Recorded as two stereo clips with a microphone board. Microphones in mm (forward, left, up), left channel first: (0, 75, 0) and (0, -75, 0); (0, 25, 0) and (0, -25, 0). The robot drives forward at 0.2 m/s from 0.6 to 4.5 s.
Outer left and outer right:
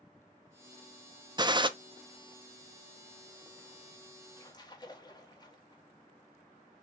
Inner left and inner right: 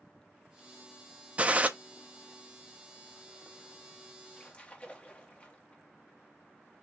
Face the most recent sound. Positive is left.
turn(degrees=30)  # may be behind; listen again after turning